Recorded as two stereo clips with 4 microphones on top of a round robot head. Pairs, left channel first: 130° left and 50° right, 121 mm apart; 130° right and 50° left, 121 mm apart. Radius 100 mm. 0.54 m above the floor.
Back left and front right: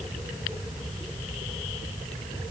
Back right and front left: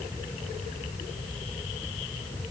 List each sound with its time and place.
Only background noise.